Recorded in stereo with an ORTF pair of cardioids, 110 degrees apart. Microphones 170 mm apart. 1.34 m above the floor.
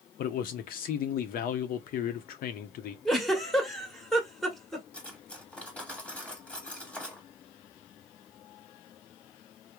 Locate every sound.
0.2 s a man speaking: 60° left, 0.6 m
3.0 s a giggle: straight ahead, 1.1 m
4.9 s cutlery clinking: 10° left, 1.3 m